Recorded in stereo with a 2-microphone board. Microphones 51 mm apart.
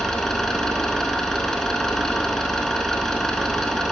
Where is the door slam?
No door slam in this recording.